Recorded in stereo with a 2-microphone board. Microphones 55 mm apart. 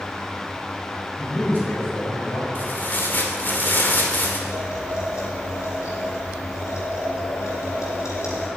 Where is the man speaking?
35° left (ahead or behind), 5.5 m.